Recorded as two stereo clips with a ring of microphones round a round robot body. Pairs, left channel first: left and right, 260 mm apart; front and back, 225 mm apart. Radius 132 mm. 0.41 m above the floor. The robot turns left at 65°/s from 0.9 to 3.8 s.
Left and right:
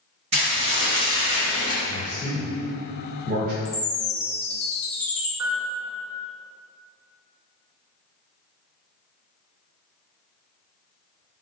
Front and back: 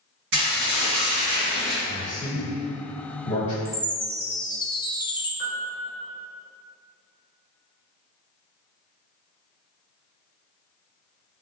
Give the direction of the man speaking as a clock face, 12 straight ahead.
10 o'clock.